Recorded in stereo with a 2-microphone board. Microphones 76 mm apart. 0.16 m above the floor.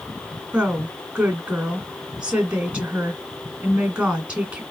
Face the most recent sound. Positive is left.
turn(degrees=-15)  # may be behind; listen again after turning